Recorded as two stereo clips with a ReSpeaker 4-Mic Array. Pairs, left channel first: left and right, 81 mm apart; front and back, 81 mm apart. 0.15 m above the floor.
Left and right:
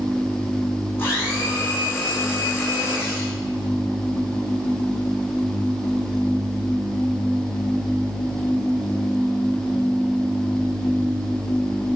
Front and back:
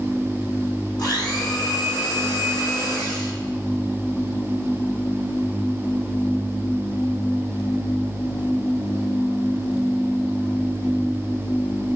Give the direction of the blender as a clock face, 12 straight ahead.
11 o'clock.